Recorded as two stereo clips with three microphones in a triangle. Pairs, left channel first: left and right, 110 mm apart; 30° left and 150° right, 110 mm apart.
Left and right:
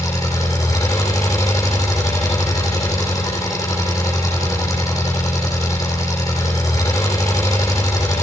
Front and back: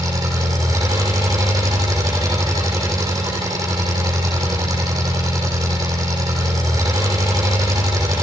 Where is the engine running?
150° left, 5 m.